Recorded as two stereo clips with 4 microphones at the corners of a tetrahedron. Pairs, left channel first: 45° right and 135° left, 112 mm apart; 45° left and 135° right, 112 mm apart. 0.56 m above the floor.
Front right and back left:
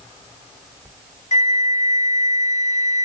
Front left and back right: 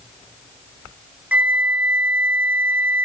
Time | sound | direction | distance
1.3 | a flute | 55° right | 1.0 m